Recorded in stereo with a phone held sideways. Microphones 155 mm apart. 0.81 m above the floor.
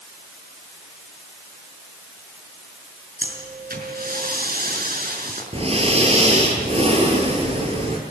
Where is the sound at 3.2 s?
75° right (ahead or behind), 5.5 m.